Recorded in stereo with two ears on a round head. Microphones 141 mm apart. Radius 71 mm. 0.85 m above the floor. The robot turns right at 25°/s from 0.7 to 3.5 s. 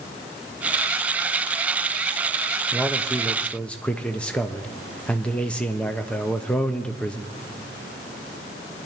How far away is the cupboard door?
No cupboard door in this recording.